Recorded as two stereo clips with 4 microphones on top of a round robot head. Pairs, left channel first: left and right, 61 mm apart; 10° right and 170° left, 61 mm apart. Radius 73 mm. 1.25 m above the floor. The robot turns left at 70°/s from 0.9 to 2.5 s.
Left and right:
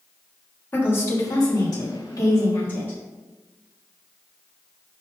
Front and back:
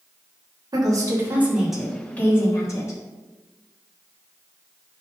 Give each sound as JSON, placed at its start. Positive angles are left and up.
{"t": 0.7, "sound": "a woman speaking", "azimuth_deg": 145, "distance_m": 2.5}